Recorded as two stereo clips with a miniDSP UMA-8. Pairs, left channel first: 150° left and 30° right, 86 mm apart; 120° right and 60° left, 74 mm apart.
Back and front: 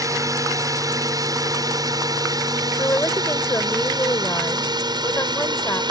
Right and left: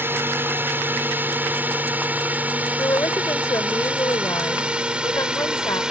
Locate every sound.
0.0 s a drone: 5° left; by 5.9 s 20° right
2.8 s a woman speaking: 155° right